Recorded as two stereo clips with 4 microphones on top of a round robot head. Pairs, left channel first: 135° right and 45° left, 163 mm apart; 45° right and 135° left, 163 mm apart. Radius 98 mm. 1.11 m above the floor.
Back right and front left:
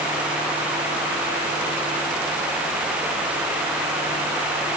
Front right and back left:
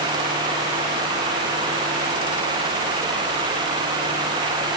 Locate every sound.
Only background noise.